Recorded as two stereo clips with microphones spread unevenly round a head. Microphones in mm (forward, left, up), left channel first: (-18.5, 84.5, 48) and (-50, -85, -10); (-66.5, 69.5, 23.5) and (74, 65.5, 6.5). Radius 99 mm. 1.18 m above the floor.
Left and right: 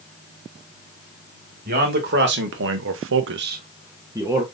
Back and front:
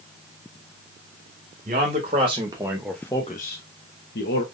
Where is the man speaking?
55° right, 1.6 m; by 4.4 s straight behind, 1.1 m.